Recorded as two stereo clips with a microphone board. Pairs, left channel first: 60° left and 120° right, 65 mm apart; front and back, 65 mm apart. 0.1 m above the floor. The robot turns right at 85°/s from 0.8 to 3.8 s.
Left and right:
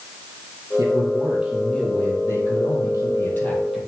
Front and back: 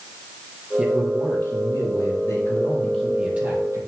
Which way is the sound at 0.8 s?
105° right.